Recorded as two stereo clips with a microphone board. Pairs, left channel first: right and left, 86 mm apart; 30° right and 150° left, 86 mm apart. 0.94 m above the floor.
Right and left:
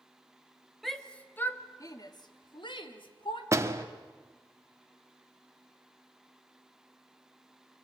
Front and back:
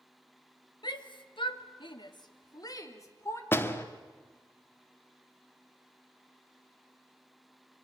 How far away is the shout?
About 1.7 m.